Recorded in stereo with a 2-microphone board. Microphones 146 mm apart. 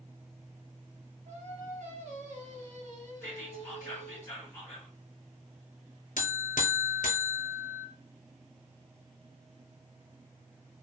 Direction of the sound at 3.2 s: 20° left (ahead or behind).